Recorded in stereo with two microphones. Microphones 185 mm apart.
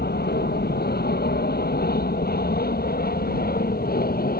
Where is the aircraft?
60° left (ahead or behind); by 4.4 s 55° left (ahead or behind).